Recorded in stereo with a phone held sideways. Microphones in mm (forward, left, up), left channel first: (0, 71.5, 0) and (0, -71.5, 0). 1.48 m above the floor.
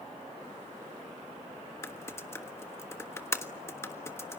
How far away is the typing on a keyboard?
About 1.3 m.